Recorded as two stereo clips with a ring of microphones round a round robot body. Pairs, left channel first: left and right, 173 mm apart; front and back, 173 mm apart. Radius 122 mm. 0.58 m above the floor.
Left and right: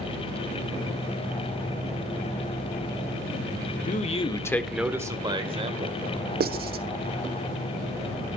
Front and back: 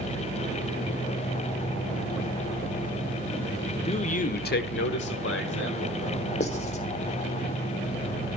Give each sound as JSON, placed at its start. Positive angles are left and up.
{"t": 3.9, "sound": "a man speaking", "azimuth_deg": 55, "distance_m": 1.4}
{"t": 6.4, "sound": "writing", "azimuth_deg": -60, "distance_m": 1.2}